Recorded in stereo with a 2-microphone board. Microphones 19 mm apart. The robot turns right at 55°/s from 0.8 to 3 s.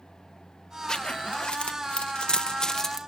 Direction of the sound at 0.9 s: 40° left (ahead or behind).